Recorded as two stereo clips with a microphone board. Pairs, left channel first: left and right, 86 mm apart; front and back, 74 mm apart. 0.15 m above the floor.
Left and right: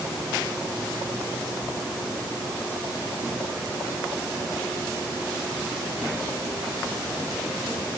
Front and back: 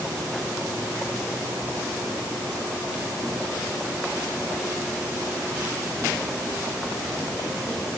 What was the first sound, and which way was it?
Only background noise.